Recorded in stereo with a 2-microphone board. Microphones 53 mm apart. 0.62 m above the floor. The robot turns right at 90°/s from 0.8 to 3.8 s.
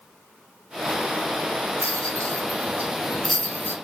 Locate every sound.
1.8 s a rattle: 55° right (ahead or behind), 0.6 m; by 3.8 s 50° left (ahead or behind), 0.6 m